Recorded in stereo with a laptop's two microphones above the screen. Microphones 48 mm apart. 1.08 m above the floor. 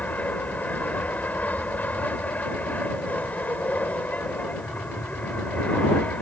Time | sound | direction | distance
0.0 | an aircraft | 35° left (ahead or behind) | ?